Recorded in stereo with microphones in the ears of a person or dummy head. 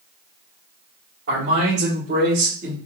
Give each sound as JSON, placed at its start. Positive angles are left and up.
{"t": 1.3, "sound": "a man speaking", "side_deg": -80, "distance_m": 1.7}